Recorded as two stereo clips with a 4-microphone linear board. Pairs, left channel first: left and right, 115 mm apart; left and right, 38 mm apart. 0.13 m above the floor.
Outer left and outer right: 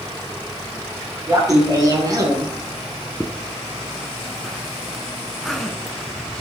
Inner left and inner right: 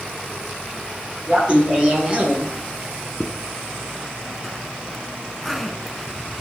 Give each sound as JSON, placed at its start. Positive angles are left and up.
{"t": 1.3, "sound": "laughter", "side_deg": -30, "distance_m": 1.7}
{"t": 3.2, "sound": "a zipper", "side_deg": 0, "distance_m": 0.7}